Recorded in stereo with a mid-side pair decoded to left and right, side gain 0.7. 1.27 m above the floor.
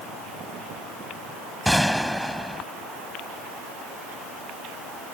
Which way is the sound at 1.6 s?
Straight ahead.